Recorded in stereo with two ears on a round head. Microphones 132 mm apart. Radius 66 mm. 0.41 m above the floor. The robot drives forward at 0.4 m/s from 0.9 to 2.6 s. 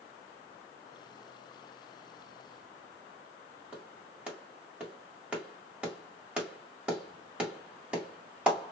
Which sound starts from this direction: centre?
A clap, at 3.7 s.